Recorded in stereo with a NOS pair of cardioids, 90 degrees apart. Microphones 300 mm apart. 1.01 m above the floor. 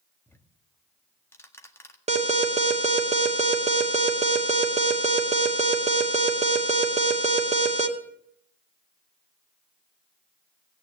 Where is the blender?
I don't hear a blender.